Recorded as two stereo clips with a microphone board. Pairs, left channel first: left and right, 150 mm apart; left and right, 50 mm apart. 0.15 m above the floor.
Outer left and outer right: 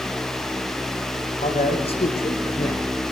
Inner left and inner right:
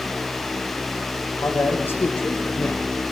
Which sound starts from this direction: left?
A man speaking, at 1.4 s.